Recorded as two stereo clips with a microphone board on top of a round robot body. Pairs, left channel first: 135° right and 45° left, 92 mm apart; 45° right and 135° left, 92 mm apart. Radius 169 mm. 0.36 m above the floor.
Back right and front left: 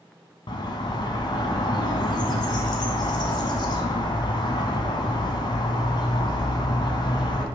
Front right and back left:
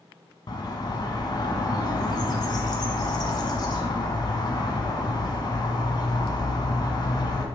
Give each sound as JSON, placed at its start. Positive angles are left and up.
{"t": 0.5, "sound": "a bird", "azimuth_deg": -90, "distance_m": 0.6}